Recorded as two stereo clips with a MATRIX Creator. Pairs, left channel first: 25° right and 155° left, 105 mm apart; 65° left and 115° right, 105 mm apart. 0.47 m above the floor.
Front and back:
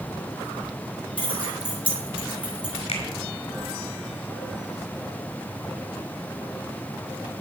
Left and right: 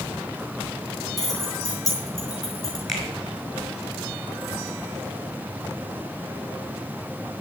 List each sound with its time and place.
1.2 s keys jangling: 15° left, 4 m
2.9 s a finger snap: 20° right, 5 m